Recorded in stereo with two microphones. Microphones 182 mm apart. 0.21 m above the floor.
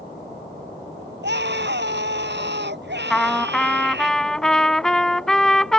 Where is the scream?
75° right (ahead or behind).